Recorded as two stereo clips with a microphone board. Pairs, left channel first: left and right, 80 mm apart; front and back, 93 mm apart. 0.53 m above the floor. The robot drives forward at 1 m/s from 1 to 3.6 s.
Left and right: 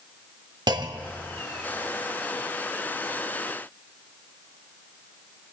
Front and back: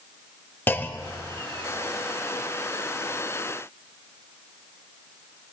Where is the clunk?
65° right, 0.9 m; by 1.4 s 95° right, 0.8 m.